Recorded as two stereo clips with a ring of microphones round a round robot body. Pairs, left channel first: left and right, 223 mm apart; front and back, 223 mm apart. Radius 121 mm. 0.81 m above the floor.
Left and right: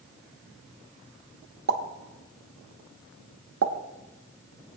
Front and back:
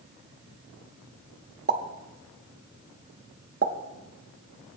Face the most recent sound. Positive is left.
turn(degrees=-125)